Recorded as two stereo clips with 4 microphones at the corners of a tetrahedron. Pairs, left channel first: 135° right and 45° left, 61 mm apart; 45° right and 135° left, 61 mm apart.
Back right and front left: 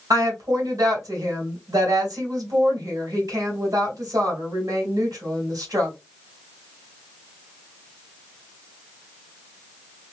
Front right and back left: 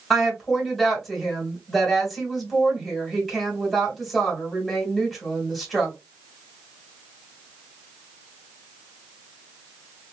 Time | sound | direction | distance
0.1 | a woman speaking | 40° left | 2.5 m